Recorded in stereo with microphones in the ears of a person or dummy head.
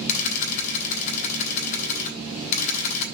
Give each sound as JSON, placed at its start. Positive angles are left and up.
{"t": 0.1, "sound": "a camera shutter", "side_deg": 45, "distance_m": 3.0}